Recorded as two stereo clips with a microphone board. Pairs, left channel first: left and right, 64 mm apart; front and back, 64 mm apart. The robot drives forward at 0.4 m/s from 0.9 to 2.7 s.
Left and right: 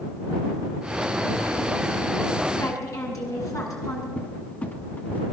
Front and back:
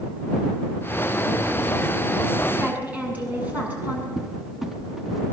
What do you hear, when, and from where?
2.6 s a woman speaking: 115° left, 7.5 m
4.2 s a cupboard door: 100° left, 0.9 m